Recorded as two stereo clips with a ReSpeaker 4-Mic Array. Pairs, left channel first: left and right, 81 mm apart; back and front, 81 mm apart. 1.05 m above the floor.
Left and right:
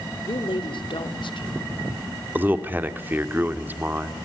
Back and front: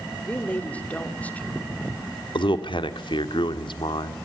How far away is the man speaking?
About 2 m.